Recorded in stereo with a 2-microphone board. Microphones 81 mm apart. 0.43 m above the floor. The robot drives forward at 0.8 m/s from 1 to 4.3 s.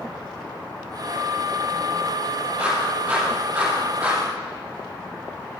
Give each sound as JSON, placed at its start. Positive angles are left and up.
{"t": 2.6, "sound": "a clap", "side_deg": -10, "distance_m": 8.0}